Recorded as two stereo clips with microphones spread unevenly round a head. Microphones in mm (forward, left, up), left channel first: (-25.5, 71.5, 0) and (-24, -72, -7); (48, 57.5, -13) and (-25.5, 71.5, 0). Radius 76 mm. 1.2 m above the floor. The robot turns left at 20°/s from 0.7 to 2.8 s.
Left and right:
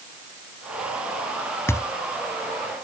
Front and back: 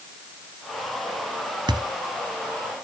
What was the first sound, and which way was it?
A thud, 160° left.